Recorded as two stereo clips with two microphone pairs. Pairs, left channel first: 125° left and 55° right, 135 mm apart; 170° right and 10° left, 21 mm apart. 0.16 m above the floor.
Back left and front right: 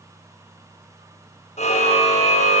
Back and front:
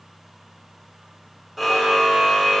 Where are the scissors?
No scissors in this recording.